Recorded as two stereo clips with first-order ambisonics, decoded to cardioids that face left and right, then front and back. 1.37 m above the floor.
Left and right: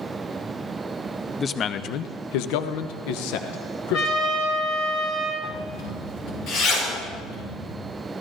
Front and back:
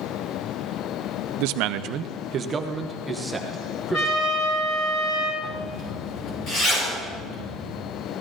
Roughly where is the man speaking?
Behind.